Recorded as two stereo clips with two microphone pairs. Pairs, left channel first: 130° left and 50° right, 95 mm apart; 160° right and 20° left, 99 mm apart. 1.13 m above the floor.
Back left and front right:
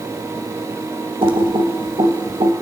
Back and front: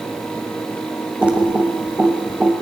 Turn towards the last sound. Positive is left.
turn(degrees=-55)